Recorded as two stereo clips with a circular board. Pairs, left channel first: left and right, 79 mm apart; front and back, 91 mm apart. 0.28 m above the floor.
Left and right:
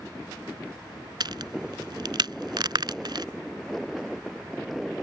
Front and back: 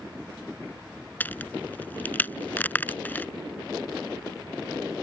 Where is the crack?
70° right.